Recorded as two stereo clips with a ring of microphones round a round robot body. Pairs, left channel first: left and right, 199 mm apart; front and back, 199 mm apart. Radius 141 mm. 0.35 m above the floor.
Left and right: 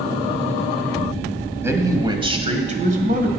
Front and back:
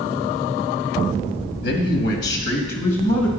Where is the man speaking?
15° right, 1.8 m; by 3.3 s 60° right, 1.8 m.